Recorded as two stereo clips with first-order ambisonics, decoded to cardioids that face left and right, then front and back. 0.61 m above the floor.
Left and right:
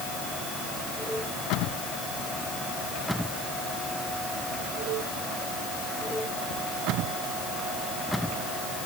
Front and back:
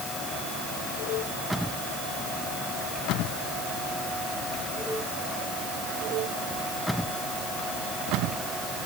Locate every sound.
Only background noise.